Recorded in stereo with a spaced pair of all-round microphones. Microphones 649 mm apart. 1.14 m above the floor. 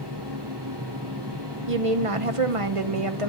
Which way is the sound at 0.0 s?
40° right (ahead or behind).